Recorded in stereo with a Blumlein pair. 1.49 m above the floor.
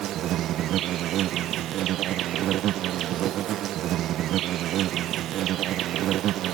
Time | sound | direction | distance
0.0 | an insect | 35° right | ?